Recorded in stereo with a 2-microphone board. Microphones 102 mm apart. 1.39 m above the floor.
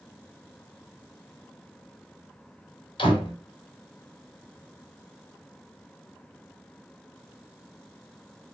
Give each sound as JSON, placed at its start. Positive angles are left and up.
{"t": 3.0, "sound": "a door slam", "side_deg": 55, "distance_m": 3.0}